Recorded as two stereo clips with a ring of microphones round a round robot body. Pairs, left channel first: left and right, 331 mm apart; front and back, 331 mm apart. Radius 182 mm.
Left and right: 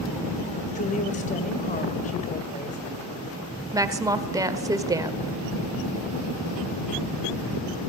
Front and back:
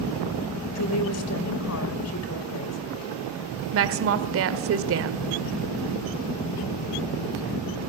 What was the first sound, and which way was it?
A woman speaking, 25° left.